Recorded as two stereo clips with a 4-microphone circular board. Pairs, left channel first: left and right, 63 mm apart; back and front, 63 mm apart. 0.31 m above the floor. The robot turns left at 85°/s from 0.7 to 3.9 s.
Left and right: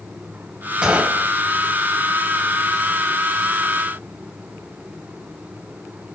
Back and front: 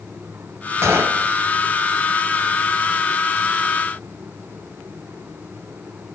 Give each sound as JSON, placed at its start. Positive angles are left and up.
{"t": 0.8, "sound": "a gunshot", "azimuth_deg": -20, "distance_m": 1.6}